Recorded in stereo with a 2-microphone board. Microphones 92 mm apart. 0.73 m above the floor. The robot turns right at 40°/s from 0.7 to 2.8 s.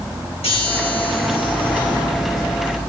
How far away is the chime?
About 7.5 m.